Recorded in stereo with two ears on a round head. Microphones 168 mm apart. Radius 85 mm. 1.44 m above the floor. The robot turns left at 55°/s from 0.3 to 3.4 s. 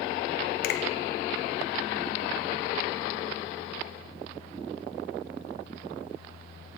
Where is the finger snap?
50° left (ahead or behind), 0.7 m.